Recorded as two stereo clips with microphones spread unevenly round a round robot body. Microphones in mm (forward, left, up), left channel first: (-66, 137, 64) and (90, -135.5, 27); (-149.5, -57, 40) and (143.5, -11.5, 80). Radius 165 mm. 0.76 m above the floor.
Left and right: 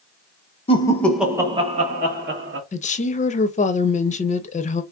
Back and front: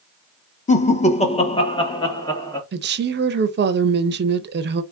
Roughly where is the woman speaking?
Ahead left.